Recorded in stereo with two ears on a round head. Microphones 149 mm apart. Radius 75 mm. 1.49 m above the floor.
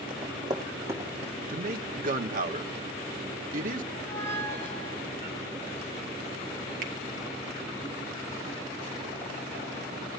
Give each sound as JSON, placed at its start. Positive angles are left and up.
{"t": 0.1, "sound": "running footsteps", "side_deg": -30, "distance_m": 5.0}
{"t": 1.5, "sound": "a man speaking", "side_deg": -55, "distance_m": 1.3}
{"t": 3.9, "sound": "a squeak", "side_deg": 15, "distance_m": 5.0}
{"t": 6.8, "sound": "a finger snap", "side_deg": -50, "distance_m": 1.7}